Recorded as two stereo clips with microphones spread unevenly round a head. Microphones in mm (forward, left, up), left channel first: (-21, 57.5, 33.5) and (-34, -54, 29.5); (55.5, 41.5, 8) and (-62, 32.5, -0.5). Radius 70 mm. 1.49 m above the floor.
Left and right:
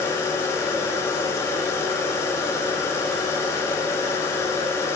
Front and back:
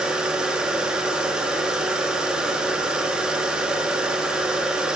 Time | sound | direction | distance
0.0 | a machine running | 100° left | 0.9 m